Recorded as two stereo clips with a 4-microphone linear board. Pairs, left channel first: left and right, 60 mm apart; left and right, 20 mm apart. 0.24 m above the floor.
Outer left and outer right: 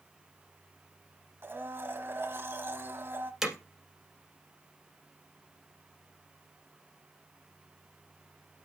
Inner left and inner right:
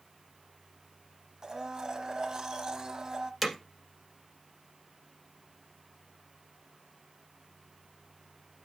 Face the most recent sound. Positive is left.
turn(degrees=-5)  # may be behind; listen again after turning